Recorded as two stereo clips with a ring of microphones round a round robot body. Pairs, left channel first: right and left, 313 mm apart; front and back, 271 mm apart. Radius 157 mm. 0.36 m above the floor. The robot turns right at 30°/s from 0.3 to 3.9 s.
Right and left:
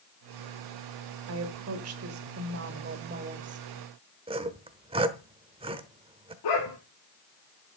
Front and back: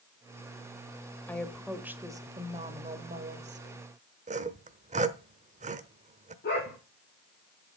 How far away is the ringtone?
I don't hear a ringtone.